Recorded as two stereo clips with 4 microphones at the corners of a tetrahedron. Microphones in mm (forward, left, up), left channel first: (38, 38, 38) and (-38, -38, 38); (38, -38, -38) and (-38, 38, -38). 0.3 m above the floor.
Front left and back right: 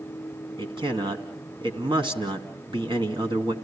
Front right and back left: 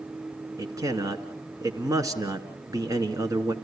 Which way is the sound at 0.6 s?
170° right.